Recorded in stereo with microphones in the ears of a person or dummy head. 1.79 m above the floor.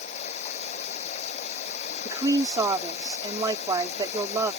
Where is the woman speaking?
20° right (ahead or behind).